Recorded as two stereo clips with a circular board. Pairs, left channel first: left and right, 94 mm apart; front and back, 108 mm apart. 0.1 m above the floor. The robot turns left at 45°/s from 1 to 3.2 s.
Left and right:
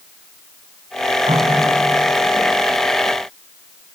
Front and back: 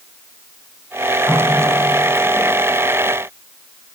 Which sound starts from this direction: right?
A running tap, at 1.3 s.